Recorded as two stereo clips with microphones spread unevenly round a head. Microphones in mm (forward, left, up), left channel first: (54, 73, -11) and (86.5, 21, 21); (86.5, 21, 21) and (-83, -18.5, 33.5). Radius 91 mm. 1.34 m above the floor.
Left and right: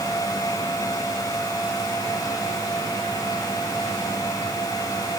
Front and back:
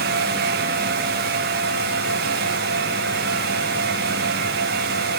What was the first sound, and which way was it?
Only background noise.